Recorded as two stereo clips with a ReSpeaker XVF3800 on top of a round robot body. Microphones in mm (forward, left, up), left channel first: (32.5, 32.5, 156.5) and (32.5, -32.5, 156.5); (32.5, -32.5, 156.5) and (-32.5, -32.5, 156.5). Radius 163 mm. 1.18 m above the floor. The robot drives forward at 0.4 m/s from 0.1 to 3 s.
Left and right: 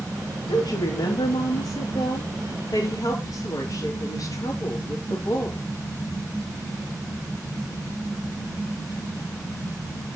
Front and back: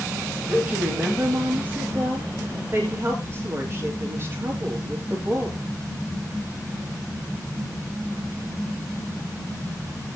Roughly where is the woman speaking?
Left.